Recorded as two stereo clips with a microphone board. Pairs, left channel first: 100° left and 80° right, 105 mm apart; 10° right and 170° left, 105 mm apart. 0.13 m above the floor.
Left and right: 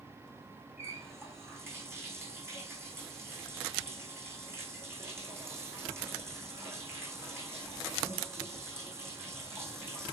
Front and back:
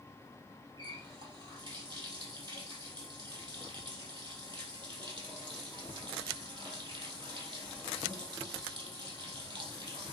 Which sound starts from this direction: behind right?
A running tap, at 0.8 s.